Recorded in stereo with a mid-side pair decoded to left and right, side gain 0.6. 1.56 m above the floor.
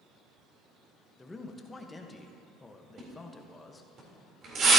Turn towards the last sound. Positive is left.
turn(degrees=-45)